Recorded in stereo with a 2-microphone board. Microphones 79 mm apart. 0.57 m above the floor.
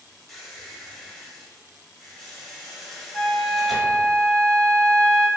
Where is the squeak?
5° left (ahead or behind), 0.8 m.